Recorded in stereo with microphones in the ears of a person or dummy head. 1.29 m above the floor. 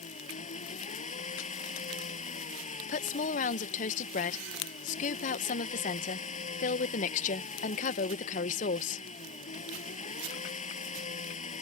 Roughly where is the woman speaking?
Left.